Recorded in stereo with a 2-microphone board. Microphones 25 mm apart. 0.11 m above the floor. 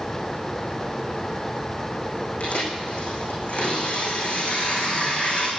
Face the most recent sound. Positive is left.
turn(degrees=65)  # may be behind; listen again after turning